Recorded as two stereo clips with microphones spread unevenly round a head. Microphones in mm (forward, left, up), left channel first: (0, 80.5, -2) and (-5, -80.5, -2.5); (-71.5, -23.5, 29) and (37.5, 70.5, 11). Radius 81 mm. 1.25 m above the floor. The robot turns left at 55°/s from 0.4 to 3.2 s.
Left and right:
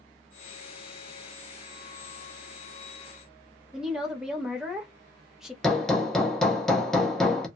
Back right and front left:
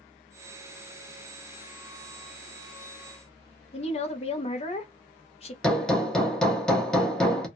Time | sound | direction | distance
3.7 | a woman speaking | straight behind | 0.8 m
5.6 | hammering | 170° left | 0.7 m